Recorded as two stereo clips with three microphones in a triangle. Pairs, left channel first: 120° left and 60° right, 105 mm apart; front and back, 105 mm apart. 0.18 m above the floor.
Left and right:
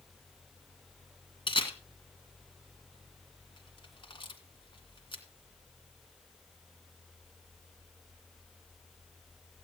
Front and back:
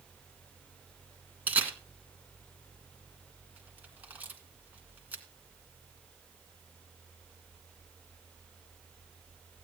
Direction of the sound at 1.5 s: 110° left.